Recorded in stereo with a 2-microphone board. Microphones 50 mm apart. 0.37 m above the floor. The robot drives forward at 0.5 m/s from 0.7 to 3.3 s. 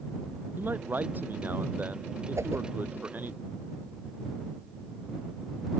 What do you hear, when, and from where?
0.6 s a man speaking: 40° right (ahead or behind)
2.4 s a whoosh: 80° right